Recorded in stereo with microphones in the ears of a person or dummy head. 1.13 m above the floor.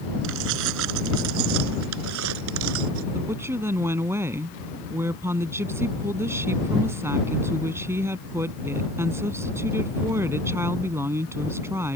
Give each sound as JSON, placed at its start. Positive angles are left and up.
{"t": 0.2, "sound": "keys jangling", "side_deg": -75}
{"t": 3.1, "sound": "a woman speaking", "side_deg": -15}